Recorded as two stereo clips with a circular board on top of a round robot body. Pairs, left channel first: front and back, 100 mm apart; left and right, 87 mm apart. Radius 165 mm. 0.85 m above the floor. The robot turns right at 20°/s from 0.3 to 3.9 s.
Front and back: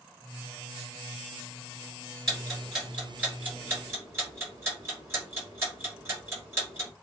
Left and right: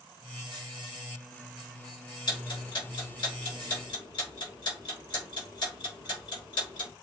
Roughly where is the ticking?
Left.